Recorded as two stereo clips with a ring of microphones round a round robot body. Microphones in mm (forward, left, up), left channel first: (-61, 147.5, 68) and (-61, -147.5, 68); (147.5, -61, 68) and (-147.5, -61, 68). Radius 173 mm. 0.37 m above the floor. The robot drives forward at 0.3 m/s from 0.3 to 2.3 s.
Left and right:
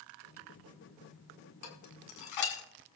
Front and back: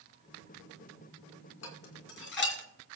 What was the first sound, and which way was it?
Dishes clattering, 55° left.